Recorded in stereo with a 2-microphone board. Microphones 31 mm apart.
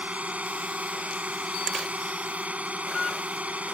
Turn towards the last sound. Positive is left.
turn(degrees=-60)  # may be behind; listen again after turning